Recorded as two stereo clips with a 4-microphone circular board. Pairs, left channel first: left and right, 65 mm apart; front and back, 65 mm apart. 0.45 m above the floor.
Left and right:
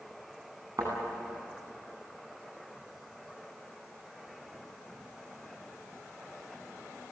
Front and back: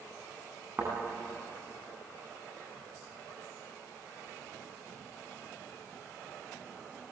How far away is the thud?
About 10 m.